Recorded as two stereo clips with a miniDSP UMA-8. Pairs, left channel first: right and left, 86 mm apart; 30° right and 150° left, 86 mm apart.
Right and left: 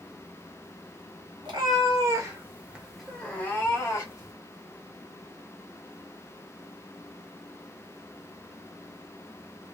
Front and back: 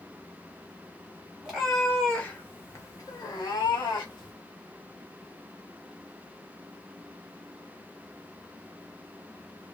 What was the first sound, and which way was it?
A cat meowing, 65° left.